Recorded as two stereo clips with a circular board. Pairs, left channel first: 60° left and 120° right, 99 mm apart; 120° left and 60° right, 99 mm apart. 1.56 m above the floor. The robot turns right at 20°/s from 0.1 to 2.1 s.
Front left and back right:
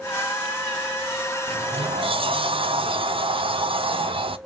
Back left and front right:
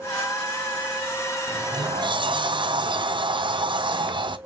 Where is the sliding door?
105° right, 0.6 m; by 4.4 s 95° right, 0.6 m.